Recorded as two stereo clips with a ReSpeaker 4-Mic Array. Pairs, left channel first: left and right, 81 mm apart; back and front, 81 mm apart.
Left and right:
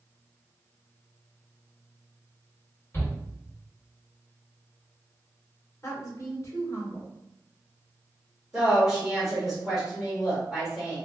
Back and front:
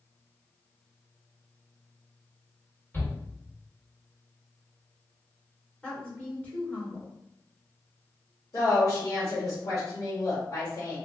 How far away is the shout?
About 1.6 m.